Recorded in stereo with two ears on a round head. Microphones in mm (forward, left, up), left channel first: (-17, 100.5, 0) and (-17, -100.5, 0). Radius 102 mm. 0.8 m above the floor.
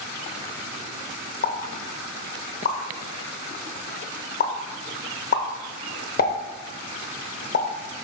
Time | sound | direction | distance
1.4 | a pop | 40° left (ahead or behind) | 0.7 m